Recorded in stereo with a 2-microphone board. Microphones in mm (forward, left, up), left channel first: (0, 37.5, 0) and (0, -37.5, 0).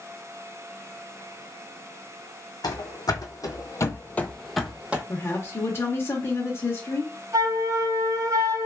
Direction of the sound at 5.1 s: 35° left (ahead or behind).